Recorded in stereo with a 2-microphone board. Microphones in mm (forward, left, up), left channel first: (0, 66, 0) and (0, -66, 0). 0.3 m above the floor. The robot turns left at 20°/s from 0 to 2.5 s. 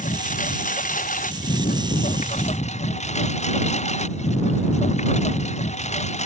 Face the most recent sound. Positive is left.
turn(degrees=60)